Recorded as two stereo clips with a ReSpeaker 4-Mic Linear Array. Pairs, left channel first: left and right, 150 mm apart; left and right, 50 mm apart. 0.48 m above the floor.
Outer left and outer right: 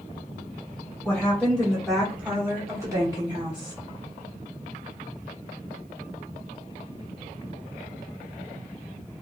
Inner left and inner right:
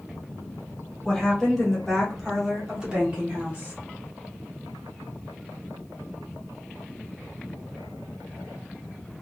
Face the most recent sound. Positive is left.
turn(degrees=-35)  # may be behind; listen again after turning